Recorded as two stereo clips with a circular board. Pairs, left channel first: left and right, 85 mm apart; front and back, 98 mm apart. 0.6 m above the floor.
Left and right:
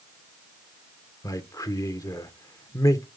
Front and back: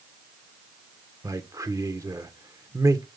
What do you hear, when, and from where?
1.2 s a man speaking: 130° left, 1.4 m